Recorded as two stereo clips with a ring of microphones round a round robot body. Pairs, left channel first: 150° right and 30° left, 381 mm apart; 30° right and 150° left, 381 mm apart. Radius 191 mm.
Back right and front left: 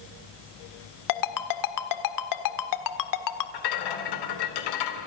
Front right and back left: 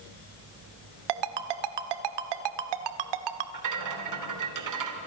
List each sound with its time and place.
1.1 s a ringtone: 170° left, 1.5 m
3.5 s a rattle: 170° right, 3 m